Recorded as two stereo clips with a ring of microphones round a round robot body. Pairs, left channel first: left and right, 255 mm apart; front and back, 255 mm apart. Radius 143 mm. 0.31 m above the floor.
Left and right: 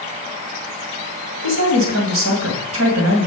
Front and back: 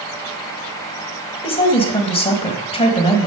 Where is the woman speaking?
65° right, 2 m.